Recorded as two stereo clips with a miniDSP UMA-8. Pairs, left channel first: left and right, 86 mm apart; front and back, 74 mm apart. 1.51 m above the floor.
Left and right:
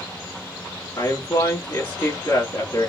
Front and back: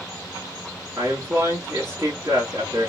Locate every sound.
1.0 s a man speaking: 140° left, 1.9 m